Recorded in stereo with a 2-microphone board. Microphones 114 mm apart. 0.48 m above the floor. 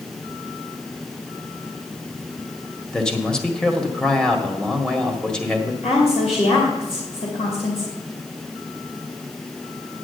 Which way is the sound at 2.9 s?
5° left (ahead or behind).